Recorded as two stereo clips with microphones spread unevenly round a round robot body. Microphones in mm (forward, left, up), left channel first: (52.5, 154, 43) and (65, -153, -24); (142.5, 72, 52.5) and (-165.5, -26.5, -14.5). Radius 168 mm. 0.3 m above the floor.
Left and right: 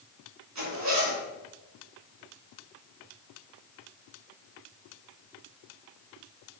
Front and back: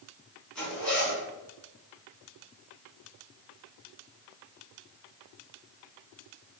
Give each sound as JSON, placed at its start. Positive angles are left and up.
{"t": 0.6, "sound": "a zipper", "azimuth_deg": -75, "distance_m": 3.0}